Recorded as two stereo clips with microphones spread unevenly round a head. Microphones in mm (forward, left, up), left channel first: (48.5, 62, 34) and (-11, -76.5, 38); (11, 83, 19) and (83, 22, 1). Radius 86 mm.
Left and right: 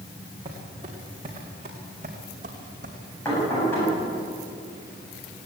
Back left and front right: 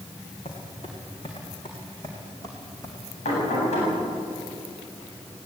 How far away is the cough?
No cough in this recording.